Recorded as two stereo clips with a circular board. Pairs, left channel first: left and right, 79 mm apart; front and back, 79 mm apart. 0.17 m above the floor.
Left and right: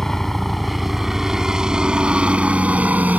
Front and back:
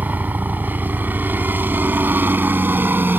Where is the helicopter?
170° left; by 3.2 s 140° right.